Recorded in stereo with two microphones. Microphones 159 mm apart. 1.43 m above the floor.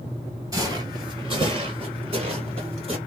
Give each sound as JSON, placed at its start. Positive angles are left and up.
{"t": 0.5, "sound": "footsteps", "side_deg": -20, "distance_m": 1.5}